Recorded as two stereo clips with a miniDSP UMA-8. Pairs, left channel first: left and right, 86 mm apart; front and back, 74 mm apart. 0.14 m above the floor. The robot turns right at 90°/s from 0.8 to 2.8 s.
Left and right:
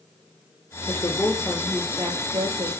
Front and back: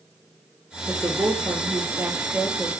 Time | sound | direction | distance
0.9 | a woman speaking | 115° left | 2.5 m